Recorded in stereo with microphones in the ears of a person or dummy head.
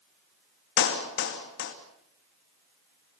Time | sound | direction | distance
0.8 | a clap | 65° left (ahead or behind) | 2.5 m